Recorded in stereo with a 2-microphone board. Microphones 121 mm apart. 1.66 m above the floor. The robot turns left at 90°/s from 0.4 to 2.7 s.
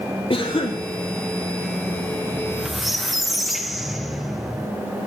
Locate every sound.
0.3 s a cough: 110° left, 0.8 m; by 0.8 s 70° left, 0.8 m
2.3 s a squeak: 145° right, 0.6 m; by 4.7 s straight behind, 0.6 m